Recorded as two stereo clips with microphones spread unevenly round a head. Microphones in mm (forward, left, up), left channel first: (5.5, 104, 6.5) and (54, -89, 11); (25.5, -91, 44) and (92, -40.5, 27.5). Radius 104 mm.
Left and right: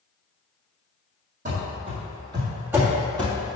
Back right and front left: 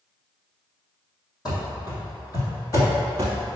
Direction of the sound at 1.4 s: 125° right.